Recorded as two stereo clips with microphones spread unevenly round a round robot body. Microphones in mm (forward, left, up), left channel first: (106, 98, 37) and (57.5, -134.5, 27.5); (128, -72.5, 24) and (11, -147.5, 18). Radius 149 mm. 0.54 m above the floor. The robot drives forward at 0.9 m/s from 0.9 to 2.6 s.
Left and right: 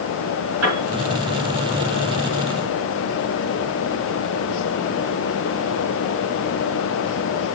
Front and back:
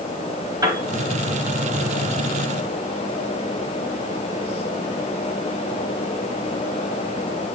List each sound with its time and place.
0.6 s a piano: 85° right, 5.5 m